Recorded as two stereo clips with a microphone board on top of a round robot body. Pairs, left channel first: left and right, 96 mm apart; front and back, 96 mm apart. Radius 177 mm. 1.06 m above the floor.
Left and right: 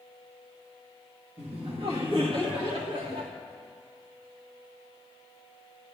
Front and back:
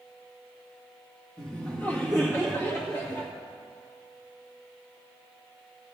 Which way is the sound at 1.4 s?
75° right.